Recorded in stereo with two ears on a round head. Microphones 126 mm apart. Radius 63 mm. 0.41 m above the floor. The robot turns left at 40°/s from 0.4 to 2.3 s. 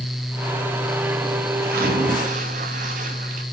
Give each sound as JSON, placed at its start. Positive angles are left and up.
{"t": 1.6, "sound": "a splash", "side_deg": -75, "distance_m": 5.0}